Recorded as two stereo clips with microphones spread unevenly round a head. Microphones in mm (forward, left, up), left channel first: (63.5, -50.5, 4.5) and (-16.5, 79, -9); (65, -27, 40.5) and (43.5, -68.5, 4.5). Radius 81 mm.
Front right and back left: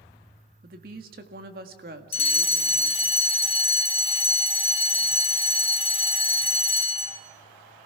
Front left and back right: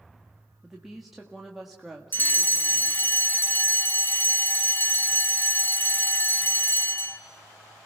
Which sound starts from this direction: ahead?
A fire alarm, at 2.1 s.